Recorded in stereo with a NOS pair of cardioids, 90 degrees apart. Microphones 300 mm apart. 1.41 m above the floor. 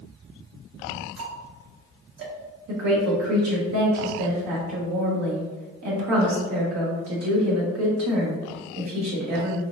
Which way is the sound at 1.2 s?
45° right.